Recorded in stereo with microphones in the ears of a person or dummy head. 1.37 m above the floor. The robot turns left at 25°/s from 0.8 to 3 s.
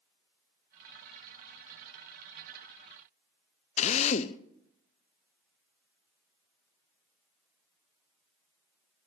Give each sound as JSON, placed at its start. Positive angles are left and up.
{"t": 3.8, "sound": "a drill", "side_deg": 35, "distance_m": 0.6}